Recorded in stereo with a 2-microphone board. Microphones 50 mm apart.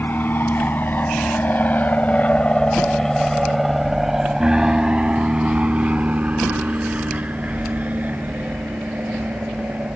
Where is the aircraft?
45° left (ahead or behind); by 10.0 s 35° right (ahead or behind).